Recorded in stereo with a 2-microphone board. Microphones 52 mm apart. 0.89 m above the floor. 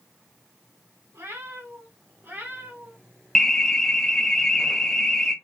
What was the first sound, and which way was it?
A cat meowing, 60° right (ahead or behind).